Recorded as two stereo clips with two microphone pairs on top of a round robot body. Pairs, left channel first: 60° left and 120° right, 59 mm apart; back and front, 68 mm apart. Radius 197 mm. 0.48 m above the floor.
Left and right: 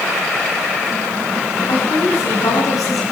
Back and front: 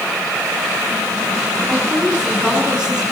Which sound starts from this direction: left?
A woman speaking, at 1.7 s.